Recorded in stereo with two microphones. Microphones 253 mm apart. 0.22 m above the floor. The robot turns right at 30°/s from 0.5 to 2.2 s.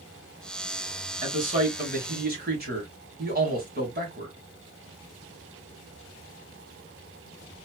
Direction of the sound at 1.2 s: 30° right (ahead or behind).